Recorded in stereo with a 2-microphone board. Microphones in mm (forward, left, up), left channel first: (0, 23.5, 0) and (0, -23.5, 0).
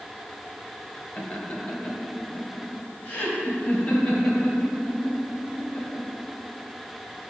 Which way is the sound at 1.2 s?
25° left (ahead or behind).